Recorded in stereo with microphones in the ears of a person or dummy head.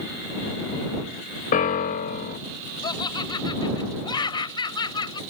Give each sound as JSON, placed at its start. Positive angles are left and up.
{"t": 1.5, "sound": "a piano", "side_deg": 45}
{"t": 2.8, "sound": "laughter", "side_deg": 25}